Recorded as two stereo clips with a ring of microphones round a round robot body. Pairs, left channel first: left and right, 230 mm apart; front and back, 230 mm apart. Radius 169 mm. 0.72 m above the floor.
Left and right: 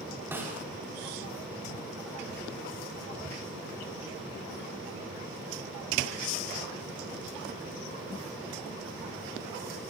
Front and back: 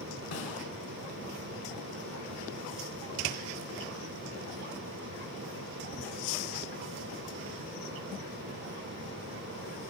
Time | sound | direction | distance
0.3 | a snare drum | 10° right | 7 m